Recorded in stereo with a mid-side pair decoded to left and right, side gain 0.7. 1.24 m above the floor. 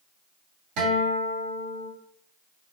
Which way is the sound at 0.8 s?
65° right.